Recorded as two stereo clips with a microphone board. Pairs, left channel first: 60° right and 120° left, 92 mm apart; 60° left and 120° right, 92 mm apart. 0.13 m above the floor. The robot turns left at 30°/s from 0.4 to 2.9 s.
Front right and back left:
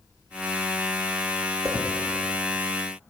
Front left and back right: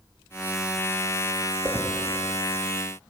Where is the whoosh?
175° left, 2.5 m; by 1.9 s 170° left, 2.5 m.